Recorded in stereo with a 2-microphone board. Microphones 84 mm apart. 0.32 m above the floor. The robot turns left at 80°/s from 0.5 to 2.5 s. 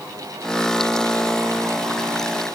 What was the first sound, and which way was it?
Only background noise.